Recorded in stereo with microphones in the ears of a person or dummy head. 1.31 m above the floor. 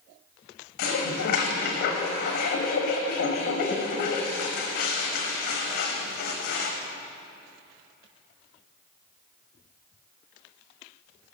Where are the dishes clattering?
55° left (ahead or behind), 1.1 m.